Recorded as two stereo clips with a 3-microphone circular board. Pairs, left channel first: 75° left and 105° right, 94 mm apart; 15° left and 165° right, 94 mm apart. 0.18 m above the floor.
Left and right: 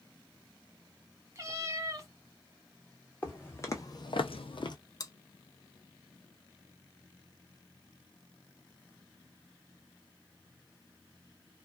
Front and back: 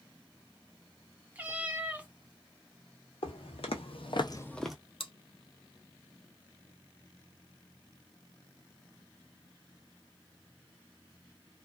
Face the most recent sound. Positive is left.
turn(degrees=25)